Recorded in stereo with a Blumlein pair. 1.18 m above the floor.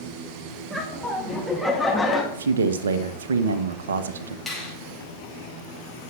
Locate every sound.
0.7 s laughter: 5° right, 2.5 m; by 2.2 s 10° left, 2 m
2.3 s a man speaking: 65° right, 1.1 m
4.5 s a finger snap: 5° left, 5.5 m